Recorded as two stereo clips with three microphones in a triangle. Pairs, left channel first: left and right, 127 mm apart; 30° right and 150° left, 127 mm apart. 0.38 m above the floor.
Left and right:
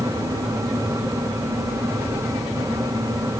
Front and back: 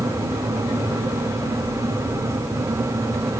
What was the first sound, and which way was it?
Only background noise.